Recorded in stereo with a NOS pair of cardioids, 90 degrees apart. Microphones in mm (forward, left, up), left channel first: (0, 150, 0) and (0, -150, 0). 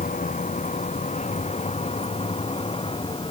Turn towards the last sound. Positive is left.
turn(degrees=15)